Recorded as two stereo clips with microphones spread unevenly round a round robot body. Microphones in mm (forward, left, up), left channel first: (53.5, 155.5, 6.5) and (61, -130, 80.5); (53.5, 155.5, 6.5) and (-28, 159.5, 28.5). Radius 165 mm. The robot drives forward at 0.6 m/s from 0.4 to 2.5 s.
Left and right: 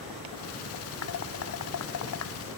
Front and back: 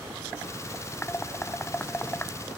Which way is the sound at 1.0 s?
60° left.